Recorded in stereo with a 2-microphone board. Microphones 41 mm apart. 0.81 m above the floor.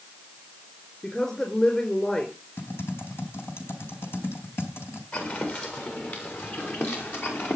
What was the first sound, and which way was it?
A woman speaking, 25° left (ahead or behind).